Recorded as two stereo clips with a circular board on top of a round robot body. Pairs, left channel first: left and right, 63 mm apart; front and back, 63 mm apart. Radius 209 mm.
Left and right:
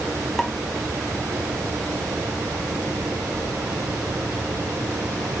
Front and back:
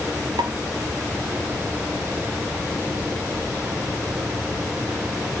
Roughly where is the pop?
Behind.